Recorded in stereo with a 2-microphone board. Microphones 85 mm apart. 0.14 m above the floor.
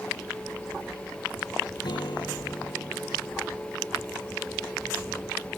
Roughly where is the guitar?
Left.